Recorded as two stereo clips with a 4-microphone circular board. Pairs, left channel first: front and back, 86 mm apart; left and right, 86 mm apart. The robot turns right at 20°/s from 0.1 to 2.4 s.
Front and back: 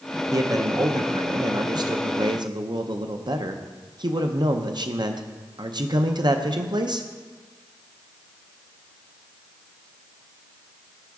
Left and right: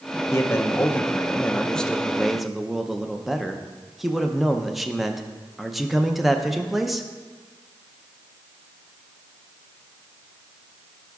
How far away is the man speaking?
About 0.6 m.